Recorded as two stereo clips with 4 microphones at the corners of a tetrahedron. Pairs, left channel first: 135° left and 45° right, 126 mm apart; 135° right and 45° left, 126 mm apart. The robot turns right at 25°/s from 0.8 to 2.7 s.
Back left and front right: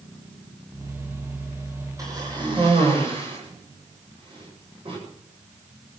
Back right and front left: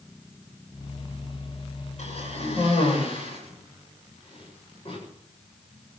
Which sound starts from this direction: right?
A cough, at 2.0 s.